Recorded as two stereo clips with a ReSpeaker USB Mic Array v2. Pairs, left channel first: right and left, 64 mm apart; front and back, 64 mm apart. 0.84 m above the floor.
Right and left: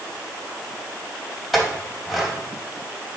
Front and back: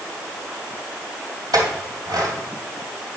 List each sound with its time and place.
1.5 s a clink: 175° left, 3 m